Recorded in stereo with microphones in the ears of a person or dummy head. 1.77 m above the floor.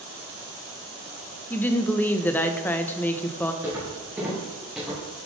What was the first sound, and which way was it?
A woman speaking, 15° left (ahead or behind).